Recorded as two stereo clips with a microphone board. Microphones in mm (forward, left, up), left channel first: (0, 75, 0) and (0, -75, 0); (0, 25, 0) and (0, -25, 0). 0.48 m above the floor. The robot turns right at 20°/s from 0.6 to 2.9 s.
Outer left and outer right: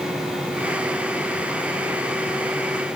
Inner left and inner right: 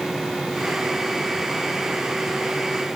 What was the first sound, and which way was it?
Only background noise.